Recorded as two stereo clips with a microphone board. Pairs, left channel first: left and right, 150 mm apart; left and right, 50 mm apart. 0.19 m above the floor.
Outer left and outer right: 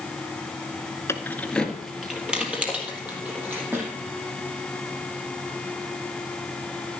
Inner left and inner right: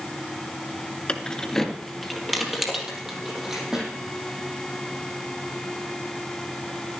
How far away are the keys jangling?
About 1.3 m.